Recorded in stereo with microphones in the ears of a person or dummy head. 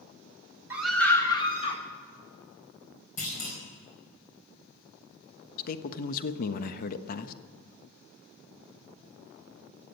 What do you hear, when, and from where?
0.7 s a scream: 15° right (ahead or behind), 1.4 m; by 1.8 s 30° left (ahead or behind), 2.5 m
3.2 s a clunk: 35° left (ahead or behind), 4 m
5.6 s a man speaking: 60° left (ahead or behind), 1.0 m